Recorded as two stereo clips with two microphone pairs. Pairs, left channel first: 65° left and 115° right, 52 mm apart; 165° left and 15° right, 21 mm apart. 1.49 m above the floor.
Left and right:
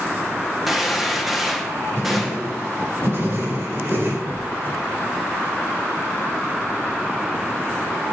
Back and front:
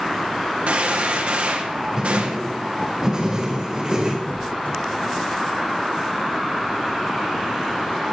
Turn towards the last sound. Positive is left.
turn(degrees=-160)